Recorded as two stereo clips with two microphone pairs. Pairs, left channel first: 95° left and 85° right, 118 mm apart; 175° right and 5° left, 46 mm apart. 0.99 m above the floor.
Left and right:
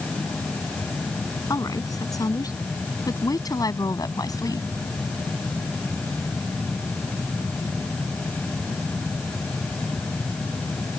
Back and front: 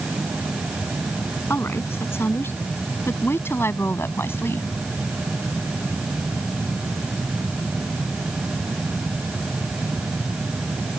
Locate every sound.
1.5 s a woman speaking: 155° left; by 4.7 s 150° left